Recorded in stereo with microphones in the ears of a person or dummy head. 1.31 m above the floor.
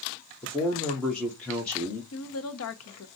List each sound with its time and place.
0.4 s a man speaking: 5° left (ahead or behind), 1.2 m
2.1 s a woman speaking: 85° left, 1.0 m